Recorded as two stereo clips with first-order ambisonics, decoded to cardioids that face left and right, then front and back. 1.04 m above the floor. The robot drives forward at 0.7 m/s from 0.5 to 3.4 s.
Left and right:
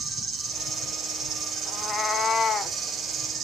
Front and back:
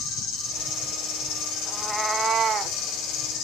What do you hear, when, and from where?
0.0 s an insect: 15° right, 5 m; by 3.5 s 30° right, 3 m
1.7 s a cat meowing: 65° left, 0.8 m; by 2.8 s 155° left, 1.0 m